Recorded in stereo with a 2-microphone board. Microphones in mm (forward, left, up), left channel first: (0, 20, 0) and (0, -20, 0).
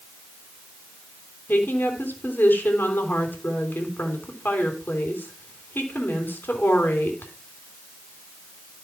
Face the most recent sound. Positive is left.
turn(degrees=60)  # may be behind; listen again after turning